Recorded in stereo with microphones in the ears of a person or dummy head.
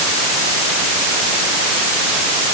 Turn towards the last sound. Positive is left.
No sound to turn to.